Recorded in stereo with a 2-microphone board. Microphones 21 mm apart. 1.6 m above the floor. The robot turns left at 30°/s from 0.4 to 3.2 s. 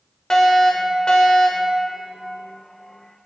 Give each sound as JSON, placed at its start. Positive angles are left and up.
{"t": 0.3, "sound": "a fire alarm", "azimuth_deg": 145, "distance_m": 1.3}